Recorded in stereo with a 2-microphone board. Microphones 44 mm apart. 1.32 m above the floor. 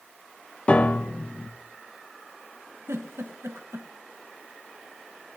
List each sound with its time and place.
0.7 s a piano: 30° left (ahead or behind), 0.6 m
2.9 s a giggle: 80° right, 1.2 m